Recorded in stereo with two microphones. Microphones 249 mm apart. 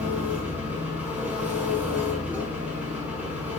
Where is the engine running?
5° right (ahead or behind), 5.5 m.